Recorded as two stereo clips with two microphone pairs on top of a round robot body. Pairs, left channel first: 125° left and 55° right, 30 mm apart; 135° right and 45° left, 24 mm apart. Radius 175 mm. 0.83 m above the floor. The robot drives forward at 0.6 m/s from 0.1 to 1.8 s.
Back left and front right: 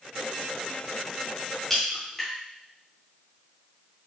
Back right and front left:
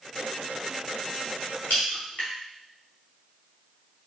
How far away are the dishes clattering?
I don't hear dishes clattering.